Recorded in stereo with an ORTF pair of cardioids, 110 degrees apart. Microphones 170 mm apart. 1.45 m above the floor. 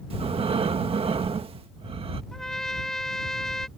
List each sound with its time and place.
0.1 s breathing: 35° right
2.3 s a trumpet: 5° left